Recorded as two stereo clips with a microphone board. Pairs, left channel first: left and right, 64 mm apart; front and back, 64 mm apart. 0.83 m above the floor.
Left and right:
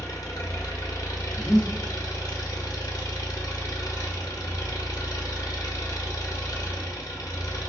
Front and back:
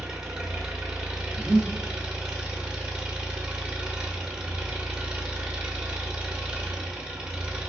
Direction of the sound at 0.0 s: 105° left.